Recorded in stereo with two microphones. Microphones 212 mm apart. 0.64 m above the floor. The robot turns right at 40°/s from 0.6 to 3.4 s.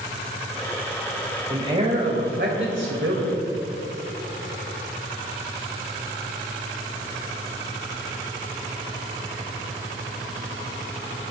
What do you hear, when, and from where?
1.5 s a man speaking: 160° right, 3 m; by 3.4 s 85° right, 3 m